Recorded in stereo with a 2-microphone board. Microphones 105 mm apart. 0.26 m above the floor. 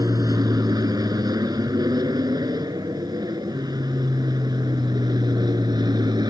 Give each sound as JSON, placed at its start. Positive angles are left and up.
{"t": 0.0, "sound": "an aircraft", "side_deg": -35}